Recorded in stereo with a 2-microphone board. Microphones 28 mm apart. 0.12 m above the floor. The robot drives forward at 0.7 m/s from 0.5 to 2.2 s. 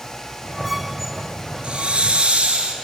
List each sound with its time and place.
1.6 s a hiss: 45° right (ahead or behind), 1.1 m; by 2.7 s 50° right (ahead or behind), 1.0 m